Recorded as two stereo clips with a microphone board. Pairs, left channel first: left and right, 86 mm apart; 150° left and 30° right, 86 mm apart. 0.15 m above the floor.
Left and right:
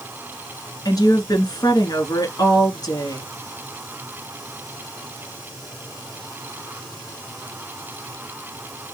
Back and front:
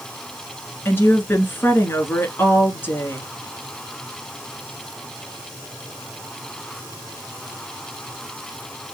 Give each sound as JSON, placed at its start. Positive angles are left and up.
{"t": 0.8, "sound": "a woman speaking", "azimuth_deg": 95, "distance_m": 1.6}